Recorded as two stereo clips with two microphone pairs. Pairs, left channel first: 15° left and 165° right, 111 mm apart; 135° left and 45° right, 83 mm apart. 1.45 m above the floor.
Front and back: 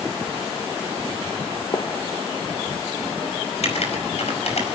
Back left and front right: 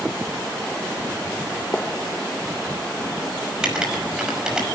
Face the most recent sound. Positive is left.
turn(degrees=35)